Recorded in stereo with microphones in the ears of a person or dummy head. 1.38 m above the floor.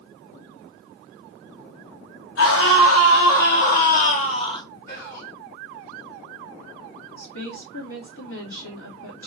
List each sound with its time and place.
2.4 s a scream: 85° left, 1.5 m; by 4.6 s 25° left (ahead or behind), 1.0 m
4.9 s whispering: 60° left (ahead or behind), 2 m
7.2 s a woman speaking: 75° left (ahead or behind), 2.5 m